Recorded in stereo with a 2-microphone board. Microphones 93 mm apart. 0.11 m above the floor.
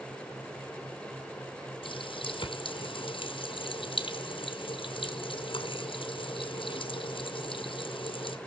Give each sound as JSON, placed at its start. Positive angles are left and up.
{"t": 1.8, "sound": "a running tap", "side_deg": 65, "distance_m": 2.5}